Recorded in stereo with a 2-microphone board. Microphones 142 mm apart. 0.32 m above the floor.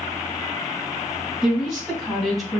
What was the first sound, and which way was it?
A woman speaking, 5° right (ahead or behind).